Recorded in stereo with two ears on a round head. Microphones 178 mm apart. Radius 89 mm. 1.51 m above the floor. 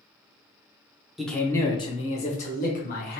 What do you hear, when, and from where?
1.2 s a man speaking: centre (ahead or behind), 0.7 m; by 3.2 s 50° left (ahead or behind), 1.5 m